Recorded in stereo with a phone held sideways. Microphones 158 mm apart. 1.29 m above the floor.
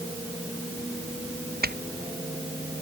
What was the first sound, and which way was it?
Footsteps, 80° right.